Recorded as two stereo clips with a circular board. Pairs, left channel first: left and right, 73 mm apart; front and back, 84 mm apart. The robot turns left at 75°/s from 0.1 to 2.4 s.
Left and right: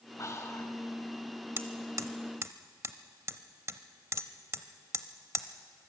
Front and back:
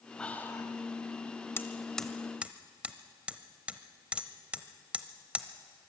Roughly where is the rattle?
I don't hear a rattle.